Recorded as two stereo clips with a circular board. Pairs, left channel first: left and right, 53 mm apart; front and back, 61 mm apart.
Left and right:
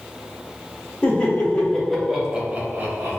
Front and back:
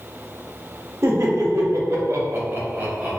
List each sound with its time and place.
1.0 s laughter: 150° left, 0.9 m; by 3.2 s 110° right, 0.7 m